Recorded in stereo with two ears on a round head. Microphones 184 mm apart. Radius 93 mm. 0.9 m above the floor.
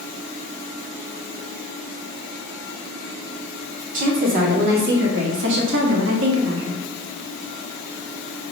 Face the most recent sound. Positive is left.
turn(degrees=-70)  # may be behind; listen again after turning